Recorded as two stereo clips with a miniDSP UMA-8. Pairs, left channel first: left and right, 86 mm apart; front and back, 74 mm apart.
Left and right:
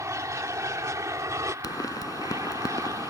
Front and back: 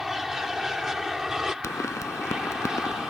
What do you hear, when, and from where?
0.0 s an aircraft: 95° right; by 3.1 s 100° right
1.6 s a pop: 45° left